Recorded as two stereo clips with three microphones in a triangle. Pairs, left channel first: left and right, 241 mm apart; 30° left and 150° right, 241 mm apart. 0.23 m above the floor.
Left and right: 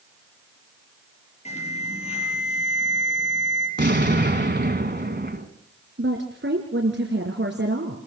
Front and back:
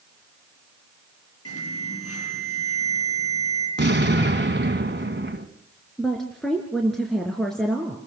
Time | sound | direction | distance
1.4 | an alarm | 25° left | 9 m
3.8 | an explosion | 120° right | 2.0 m
6.0 | a woman speaking | 60° right | 3 m